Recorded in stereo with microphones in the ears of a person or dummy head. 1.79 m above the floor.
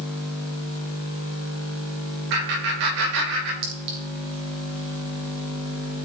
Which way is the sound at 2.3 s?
60° right (ahead or behind).